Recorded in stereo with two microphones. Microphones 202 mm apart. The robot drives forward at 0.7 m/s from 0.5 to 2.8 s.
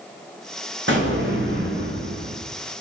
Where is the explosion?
65° right (ahead or behind), 4.5 m; by 2.4 s 80° right, 4 m.